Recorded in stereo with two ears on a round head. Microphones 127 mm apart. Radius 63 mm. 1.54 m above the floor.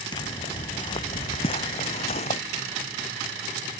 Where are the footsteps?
30° left (ahead or behind); by 2.4 s 45° left (ahead or behind).